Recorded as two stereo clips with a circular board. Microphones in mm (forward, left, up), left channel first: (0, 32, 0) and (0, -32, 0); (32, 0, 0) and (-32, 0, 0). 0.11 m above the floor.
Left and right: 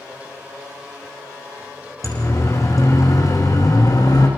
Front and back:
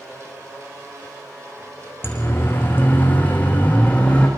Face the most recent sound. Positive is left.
turn(degrees=70)